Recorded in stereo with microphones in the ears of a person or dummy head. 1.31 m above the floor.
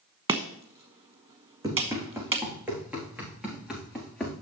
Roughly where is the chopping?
Right.